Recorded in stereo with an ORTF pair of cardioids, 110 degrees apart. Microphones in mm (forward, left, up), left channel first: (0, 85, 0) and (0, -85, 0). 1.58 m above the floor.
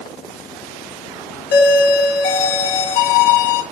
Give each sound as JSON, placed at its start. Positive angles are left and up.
{"t": 1.5, "sound": "a doorbell", "azimuth_deg": 70, "distance_m": 0.9}